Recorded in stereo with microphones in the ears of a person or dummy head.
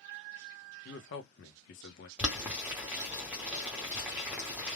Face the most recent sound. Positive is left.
turn(degrees=-10)  # may be behind; listen again after turning